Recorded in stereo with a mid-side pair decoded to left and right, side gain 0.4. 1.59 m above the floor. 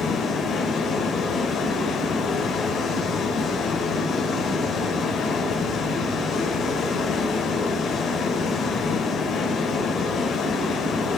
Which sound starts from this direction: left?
Running water, at 0.0 s.